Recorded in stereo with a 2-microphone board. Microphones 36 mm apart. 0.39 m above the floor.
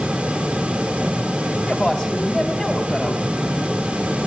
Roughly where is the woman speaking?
Centre.